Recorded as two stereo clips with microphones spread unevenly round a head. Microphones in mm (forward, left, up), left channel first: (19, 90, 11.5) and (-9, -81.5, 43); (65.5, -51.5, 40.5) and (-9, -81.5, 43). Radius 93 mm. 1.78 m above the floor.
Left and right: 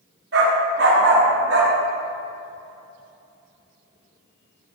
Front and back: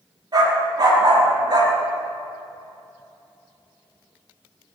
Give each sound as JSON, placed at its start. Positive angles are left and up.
{"t": 0.3, "sound": "a dog barking", "azimuth_deg": -125, "distance_m": 5.5}